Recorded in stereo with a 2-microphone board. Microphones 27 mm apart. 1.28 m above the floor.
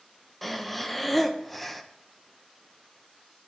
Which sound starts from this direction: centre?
Breathing, at 0.4 s.